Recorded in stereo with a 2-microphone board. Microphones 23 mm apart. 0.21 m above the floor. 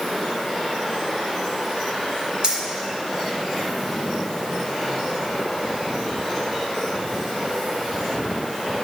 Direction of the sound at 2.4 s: 40° right (ahead or behind).